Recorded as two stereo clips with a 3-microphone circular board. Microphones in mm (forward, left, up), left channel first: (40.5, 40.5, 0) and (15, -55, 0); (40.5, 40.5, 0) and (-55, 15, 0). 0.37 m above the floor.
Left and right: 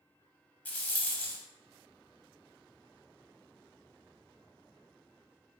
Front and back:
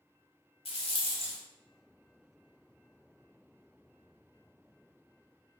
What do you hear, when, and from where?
0.7 s a rattle: straight ahead, 0.5 m